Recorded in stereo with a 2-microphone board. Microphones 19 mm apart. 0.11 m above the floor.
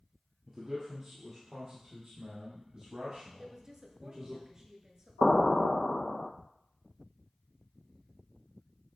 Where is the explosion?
45° left (ahead or behind), 0.7 m.